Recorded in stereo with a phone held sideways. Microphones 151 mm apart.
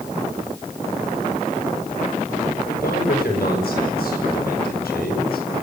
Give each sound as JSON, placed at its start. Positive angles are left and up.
{"t": 2.7, "sound": "a man speaking", "side_deg": 80, "distance_m": 8.0}